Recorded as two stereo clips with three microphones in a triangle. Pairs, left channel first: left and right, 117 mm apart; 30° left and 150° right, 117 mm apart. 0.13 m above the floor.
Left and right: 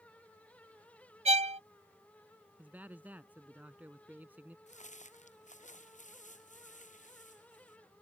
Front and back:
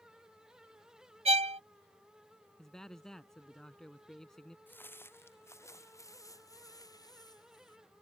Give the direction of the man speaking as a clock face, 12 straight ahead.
2 o'clock.